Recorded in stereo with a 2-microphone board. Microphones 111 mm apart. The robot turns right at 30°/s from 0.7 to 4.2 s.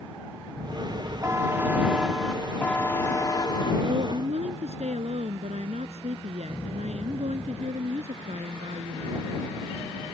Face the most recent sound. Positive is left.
turn(degrees=-85)